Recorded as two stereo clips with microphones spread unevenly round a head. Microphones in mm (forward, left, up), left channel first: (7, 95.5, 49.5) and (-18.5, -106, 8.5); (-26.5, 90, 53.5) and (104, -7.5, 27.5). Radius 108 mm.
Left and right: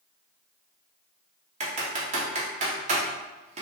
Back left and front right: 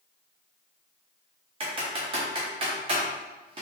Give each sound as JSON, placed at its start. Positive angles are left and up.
{"t": 1.6, "sound": "typing on a keyboard", "azimuth_deg": -65, "distance_m": 0.8}